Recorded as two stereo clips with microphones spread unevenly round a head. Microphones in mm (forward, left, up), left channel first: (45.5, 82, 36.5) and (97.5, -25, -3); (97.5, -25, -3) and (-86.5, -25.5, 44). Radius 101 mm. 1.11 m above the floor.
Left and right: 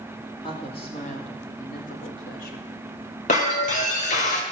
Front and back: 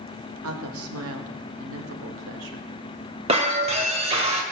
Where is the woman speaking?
175° right, 2 m; by 2.7 s 140° left, 2.0 m.